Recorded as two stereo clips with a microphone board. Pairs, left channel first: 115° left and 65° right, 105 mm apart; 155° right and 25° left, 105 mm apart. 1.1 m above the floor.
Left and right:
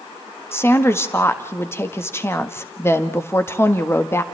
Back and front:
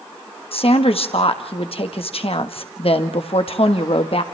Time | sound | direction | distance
0.5 | a woman speaking | straight behind | 1.5 m